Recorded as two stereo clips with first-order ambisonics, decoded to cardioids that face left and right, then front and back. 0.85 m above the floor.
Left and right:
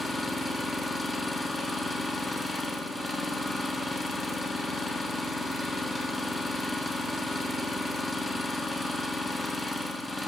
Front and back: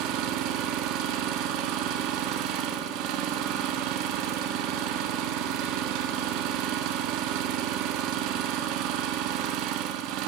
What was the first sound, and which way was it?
An engine running, 175° left.